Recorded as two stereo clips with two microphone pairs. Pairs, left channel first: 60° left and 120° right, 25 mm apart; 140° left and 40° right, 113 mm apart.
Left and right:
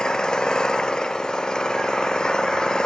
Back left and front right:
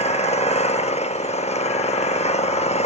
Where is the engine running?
120° left.